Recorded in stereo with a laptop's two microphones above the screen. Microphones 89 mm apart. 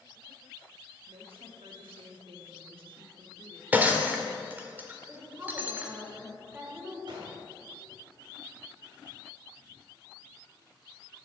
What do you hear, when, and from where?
1.1 s a woman speaking: 80° right, 2.5 m
3.7 s breaking glass: 20° right (ahead or behind), 1.7 m
5.1 s a woman speaking: 25° right (ahead or behind), 5 m
7.1 s a gunshot: 65° right (ahead or behind), 3 m